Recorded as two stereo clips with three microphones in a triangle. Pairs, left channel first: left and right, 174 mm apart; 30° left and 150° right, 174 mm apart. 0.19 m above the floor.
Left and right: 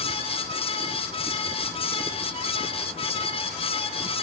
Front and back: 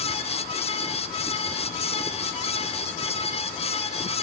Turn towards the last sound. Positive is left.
No sound to turn to.